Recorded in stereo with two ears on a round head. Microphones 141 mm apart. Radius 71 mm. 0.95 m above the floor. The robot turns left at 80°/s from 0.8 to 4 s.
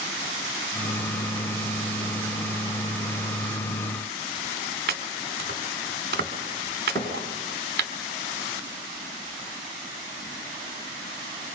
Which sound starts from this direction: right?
Chopping, at 4.9 s.